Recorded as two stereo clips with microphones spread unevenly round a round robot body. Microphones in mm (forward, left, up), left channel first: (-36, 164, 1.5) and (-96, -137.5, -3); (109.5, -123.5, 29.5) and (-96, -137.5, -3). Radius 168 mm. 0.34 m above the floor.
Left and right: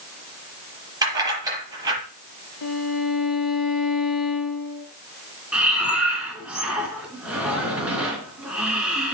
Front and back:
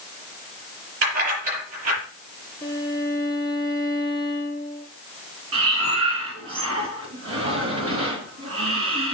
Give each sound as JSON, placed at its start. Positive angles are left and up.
{"t": 1.0, "sound": "keys jangling", "azimuth_deg": 180, "distance_m": 6.5}
{"t": 2.6, "sound": "a violin", "azimuth_deg": 95, "distance_m": 2.5}
{"t": 5.5, "sound": "breathing", "azimuth_deg": 170, "distance_m": 3.5}